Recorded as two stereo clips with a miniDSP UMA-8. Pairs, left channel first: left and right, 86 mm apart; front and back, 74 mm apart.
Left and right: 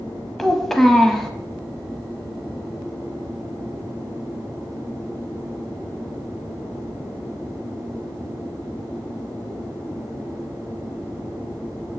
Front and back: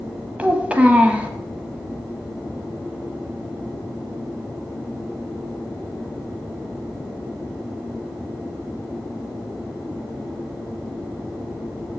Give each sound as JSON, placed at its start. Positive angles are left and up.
{"t": 0.4, "sound": "a child speaking", "azimuth_deg": 170, "distance_m": 0.8}